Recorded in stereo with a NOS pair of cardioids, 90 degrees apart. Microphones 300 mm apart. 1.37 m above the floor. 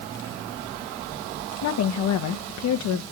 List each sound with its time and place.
1.6 s a woman speaking: 65° left, 1.2 m